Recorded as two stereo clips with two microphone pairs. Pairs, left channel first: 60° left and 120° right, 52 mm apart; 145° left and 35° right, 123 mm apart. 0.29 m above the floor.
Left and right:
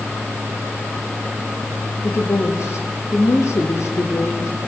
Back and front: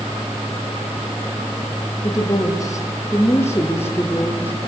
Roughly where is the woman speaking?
Left.